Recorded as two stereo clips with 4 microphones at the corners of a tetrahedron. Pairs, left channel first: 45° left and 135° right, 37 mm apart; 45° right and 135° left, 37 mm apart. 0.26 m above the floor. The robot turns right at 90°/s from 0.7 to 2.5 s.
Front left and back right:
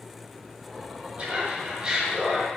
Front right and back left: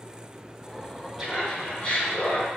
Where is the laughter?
140° right, 1.5 m; by 2.5 s 25° right, 1.5 m.